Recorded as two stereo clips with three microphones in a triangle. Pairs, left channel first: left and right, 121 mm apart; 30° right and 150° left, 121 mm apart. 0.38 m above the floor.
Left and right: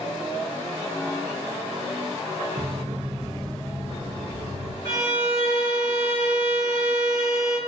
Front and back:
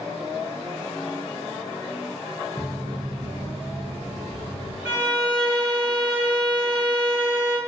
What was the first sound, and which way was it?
Footsteps, 145° right.